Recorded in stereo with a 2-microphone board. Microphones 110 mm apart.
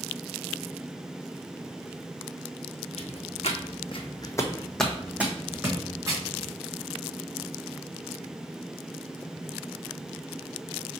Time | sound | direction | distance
3.0 | footsteps | 80° left | 1.3 m